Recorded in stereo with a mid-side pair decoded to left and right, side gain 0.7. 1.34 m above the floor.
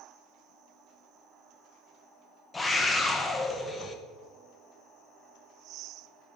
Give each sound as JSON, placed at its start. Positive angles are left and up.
{"t": 2.5, "sound": "a scream", "azimuth_deg": 20, "distance_m": 0.9}